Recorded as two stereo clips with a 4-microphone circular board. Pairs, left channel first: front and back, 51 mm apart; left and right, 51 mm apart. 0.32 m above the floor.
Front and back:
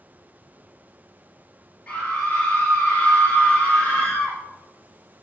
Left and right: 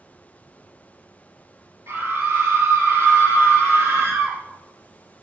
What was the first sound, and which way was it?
A scream, 75° right.